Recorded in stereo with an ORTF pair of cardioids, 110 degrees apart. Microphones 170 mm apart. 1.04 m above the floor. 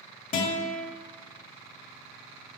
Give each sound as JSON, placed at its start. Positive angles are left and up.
{"t": 0.3, "sound": "a guitar", "azimuth_deg": 50, "distance_m": 1.7}